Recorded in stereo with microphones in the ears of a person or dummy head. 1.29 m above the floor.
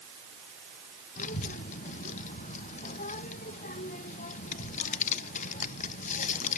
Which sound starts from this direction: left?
A child speaking, at 1.2 s.